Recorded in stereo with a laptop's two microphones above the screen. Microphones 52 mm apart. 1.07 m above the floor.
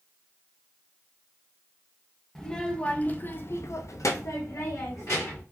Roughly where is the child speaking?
Centre.